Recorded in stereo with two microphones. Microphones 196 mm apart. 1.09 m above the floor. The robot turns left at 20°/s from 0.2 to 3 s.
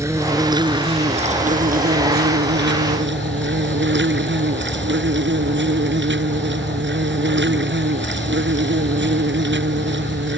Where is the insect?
15° right; by 10.4 s 70° right.